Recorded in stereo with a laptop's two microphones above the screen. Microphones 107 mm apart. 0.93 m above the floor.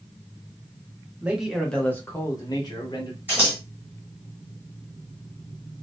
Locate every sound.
1.2 s a man speaking: 15° right (ahead or behind), 0.7 m; by 3.2 s 50° left (ahead or behind), 1.1 m
3.3 s scissors: 15° right (ahead or behind), 1.3 m